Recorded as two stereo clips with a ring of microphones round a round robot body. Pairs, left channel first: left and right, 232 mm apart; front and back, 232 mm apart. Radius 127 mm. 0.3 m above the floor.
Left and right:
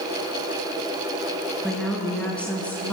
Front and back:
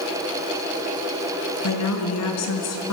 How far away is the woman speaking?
About 4 m.